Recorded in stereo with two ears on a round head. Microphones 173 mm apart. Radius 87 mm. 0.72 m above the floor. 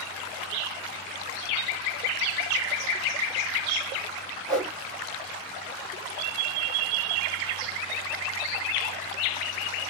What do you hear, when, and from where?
4.5 s a whoosh: 5° left (ahead or behind), 1.6 m